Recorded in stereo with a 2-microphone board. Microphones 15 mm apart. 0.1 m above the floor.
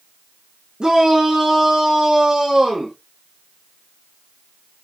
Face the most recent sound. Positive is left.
turn(degrees=-60)  # may be behind; listen again after turning